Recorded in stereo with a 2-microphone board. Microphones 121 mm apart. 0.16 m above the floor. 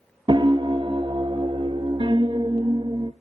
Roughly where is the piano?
Right.